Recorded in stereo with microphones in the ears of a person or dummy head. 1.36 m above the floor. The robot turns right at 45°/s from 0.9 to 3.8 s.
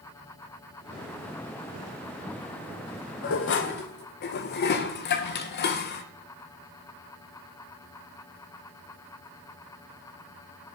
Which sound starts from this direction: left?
Dishes clattering, at 3.2 s.